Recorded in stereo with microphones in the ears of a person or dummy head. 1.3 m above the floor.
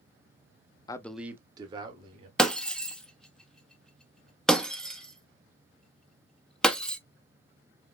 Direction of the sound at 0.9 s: 25° left (ahead or behind).